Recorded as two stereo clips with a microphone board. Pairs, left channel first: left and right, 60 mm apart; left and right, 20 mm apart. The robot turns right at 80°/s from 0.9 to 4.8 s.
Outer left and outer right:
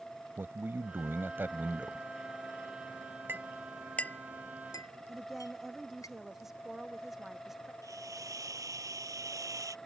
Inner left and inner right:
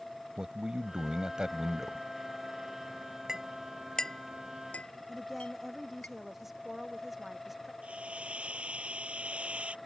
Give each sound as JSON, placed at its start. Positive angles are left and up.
{"t": 0.4, "sound": "a man speaking", "azimuth_deg": -105}
{"t": 3.3, "sound": "a clink", "side_deg": -35}
{"t": 5.1, "sound": "a woman speaking", "side_deg": -5}
{"t": 7.8, "sound": "a hiss", "side_deg": -70}